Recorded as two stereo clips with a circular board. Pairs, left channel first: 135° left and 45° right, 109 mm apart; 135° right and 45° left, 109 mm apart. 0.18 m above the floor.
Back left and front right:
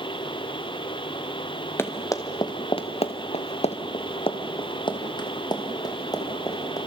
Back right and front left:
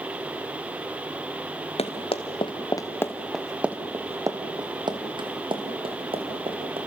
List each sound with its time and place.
1.8 s running footsteps: 155° right, 2 m; by 6.8 s 80° left, 4.5 m